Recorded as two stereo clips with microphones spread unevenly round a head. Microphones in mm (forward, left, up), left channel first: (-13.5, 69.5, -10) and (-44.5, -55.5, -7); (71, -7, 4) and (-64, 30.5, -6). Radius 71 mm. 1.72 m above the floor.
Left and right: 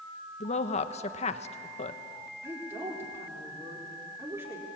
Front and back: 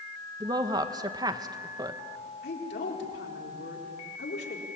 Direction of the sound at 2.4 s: 30° right.